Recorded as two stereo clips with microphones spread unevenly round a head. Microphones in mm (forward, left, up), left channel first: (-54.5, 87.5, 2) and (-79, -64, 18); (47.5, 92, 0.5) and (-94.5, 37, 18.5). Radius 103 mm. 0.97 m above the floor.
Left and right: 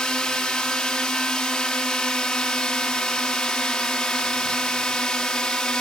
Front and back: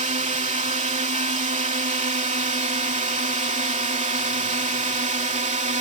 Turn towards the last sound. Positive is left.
turn(degrees=165)